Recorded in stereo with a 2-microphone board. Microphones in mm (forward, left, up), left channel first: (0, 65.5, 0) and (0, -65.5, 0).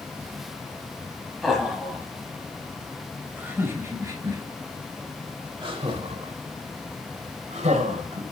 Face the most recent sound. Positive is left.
turn(degrees=-60)  # may be behind; listen again after turning